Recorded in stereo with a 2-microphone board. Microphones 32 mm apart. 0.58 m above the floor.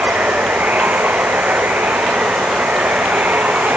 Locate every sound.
0.0 s running water: 80° right